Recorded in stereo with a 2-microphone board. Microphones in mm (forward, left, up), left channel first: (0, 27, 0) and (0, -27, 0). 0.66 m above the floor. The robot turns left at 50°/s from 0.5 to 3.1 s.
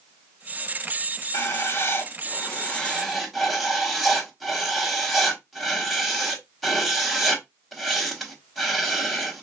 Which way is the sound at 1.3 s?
85° left.